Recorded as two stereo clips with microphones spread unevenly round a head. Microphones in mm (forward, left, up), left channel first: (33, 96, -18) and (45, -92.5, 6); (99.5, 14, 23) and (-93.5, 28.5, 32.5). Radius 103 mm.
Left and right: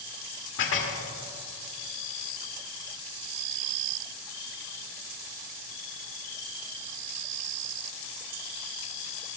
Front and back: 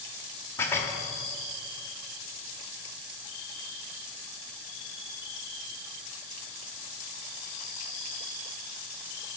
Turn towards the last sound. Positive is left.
turn(degrees=75)